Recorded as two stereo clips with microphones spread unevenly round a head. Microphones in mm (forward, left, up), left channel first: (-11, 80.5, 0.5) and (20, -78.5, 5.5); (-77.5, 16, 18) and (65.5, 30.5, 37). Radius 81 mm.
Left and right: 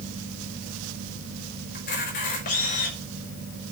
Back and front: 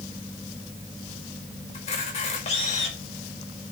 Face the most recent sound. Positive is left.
turn(degrees=145)